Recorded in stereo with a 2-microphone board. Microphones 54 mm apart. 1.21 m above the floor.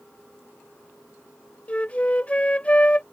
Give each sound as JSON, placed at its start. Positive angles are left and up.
{"t": 1.7, "sound": "a flute", "side_deg": 25}